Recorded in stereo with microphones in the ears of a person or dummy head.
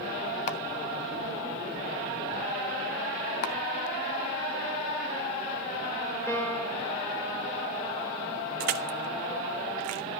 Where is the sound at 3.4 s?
55° left (ahead or behind), 1.4 m.